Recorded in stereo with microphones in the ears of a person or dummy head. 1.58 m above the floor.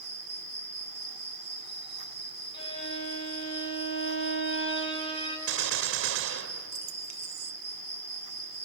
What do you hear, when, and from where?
0.0 s an insect: 30° left (ahead or behind), 2.5 m
2.5 s a violin: 35° left (ahead or behind), 2.5 m
5.5 s a gunshot: 85° right, 0.7 m